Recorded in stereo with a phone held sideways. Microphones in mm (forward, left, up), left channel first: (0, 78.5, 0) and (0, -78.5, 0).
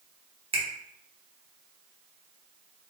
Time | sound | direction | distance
0.5 | a finger snap | 40° right (ahead or behind) | 0.7 m